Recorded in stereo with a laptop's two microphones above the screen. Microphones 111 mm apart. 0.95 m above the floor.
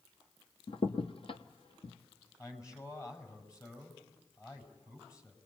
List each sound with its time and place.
0.7 s a crack: 55° left (ahead or behind), 1.1 m
2.4 s a man speaking: 30° left (ahead or behind), 7 m